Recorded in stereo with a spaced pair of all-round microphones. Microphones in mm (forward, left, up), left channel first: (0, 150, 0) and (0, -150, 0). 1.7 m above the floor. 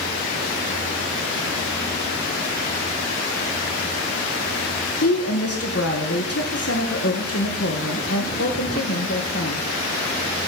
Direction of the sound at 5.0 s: 50° left (ahead or behind).